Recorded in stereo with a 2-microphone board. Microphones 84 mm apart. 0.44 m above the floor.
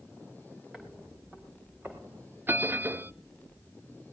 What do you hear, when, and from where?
0.7 s footsteps: 5° right (ahead or behind), 3.5 m; by 2.4 s 25° right (ahead or behind), 5 m
2.5 s a bell: 25° right (ahead or behind), 0.6 m